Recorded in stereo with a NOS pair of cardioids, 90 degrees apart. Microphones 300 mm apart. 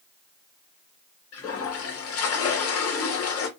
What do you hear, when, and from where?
1.3 s a toilet flushing: 50° left, 1.0 m